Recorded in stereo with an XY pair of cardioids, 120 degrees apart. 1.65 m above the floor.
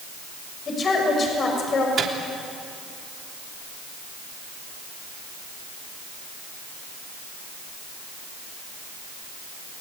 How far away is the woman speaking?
About 6.5 m.